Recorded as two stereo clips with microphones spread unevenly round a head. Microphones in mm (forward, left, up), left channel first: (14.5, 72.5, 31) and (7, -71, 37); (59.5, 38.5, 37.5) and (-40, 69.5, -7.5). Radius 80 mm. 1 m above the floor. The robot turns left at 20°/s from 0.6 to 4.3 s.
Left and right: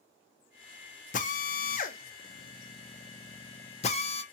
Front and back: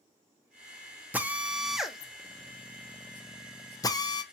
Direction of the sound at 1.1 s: 105° left.